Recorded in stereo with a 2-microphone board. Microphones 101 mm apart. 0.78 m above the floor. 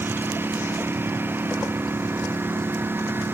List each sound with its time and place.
0.0 s a lawn mower: 20° right (ahead or behind)